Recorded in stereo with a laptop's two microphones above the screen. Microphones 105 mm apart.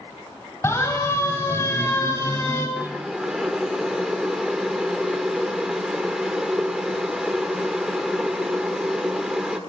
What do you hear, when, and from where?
0.6 s a siren: 25° left (ahead or behind), 9.5 m; by 2.7 s 30° left (ahead or behind), 8.5 m
2.8 s boiling: 5° right (ahead or behind), 1.8 m